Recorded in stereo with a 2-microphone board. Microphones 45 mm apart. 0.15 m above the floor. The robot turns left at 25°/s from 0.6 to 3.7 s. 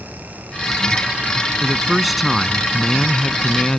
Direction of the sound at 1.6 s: 5° right (ahead or behind).